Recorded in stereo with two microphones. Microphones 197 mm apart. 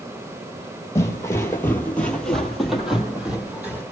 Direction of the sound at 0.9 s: 15° left (ahead or behind).